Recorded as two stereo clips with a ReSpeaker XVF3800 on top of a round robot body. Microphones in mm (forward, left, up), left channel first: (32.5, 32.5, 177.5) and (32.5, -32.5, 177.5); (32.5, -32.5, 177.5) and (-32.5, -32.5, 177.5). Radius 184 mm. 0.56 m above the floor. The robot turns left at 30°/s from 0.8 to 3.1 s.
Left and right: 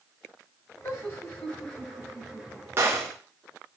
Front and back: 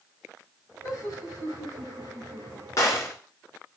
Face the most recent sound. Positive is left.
turn(degrees=-50)